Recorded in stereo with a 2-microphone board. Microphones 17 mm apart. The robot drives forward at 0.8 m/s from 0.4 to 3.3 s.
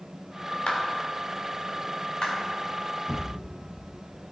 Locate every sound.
0.7 s a clap: 75° left (ahead or behind), 2.5 m; by 2.3 s 55° left (ahead or behind), 3 m
3.1 s a thud: 85° left, 4 m